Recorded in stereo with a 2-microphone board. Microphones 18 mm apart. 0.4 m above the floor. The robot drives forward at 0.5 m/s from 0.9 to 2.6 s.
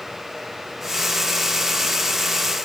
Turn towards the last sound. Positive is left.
No sound to turn to.